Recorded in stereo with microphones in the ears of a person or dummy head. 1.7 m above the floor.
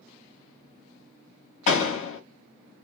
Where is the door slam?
35° left (ahead or behind), 1.9 m.